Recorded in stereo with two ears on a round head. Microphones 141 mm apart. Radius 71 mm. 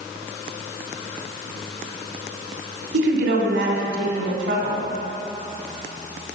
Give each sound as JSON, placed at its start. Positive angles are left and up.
{"t": 2.9, "sound": "a woman speaking", "side_deg": -75, "distance_m": 2.5}